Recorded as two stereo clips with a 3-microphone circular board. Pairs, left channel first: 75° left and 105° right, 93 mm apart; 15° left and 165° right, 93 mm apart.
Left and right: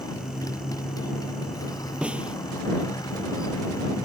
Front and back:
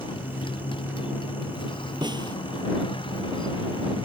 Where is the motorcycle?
30° left.